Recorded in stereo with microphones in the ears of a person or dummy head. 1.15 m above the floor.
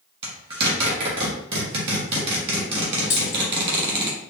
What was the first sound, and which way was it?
A zipper, 30° right (ahead or behind).